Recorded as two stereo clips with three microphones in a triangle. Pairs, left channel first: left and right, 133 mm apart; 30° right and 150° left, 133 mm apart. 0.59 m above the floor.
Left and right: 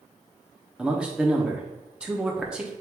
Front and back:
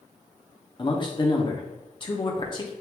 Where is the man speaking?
10° right, 0.8 m.